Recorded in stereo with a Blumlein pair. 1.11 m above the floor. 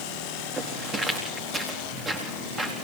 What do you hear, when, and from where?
0.6 s footsteps: 5° right, 4 m